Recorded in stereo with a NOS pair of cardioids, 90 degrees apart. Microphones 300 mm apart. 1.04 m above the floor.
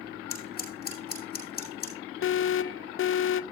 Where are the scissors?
35° left, 8.5 m.